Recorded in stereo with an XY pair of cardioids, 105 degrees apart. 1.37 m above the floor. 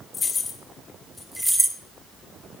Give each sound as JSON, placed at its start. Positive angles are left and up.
{"t": 0.1, "sound": "keys jangling", "azimuth_deg": 40, "distance_m": 2.5}